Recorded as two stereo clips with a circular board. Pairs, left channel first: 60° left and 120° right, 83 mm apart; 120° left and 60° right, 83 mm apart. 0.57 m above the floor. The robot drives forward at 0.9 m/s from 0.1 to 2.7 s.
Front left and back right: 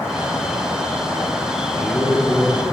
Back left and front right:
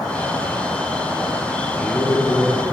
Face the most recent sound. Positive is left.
turn(degrees=140)